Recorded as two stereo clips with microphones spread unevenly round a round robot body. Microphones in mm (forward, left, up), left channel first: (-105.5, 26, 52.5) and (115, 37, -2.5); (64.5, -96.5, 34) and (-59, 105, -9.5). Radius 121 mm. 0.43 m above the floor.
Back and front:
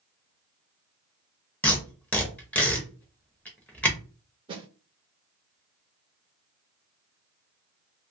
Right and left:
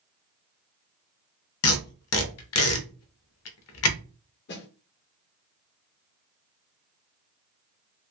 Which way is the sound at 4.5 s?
30° right.